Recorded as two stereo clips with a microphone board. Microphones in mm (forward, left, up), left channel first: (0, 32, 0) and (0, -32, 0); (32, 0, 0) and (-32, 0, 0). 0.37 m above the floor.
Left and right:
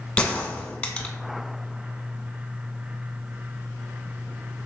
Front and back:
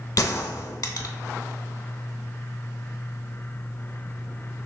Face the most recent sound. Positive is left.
turn(degrees=20)